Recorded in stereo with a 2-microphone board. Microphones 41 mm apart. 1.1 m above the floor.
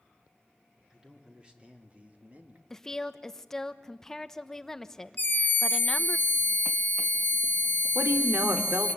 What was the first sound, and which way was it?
A man speaking, 20° right (ahead or behind).